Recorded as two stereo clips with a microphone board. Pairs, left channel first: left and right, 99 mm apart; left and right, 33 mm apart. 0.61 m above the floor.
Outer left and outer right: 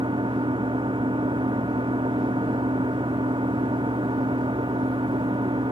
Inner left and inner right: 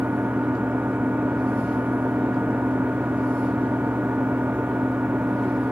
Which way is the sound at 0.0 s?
55° right (ahead or behind).